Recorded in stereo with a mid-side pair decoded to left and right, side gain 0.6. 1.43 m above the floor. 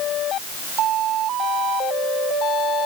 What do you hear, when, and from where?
Only background noise.